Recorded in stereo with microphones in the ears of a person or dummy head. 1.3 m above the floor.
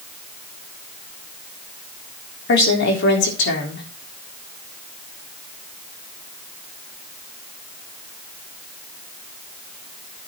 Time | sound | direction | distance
2.5 | a woman speaking | 60° left (ahead or behind) | 3.5 m